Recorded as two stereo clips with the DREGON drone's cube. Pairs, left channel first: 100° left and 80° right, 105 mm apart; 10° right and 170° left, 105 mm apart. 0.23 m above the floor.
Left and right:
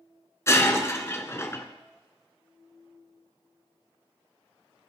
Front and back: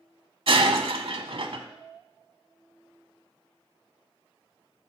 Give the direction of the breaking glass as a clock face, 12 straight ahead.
7 o'clock.